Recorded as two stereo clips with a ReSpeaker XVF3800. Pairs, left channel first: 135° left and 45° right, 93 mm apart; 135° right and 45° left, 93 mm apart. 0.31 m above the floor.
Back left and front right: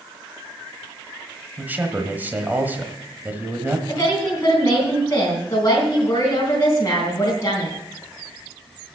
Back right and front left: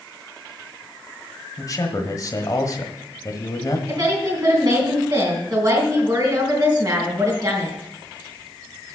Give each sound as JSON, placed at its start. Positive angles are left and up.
{"t": 1.6, "sound": "a man speaking", "azimuth_deg": -110, "distance_m": 1.3}
{"t": 3.9, "sound": "a woman speaking", "azimuth_deg": 85, "distance_m": 3.5}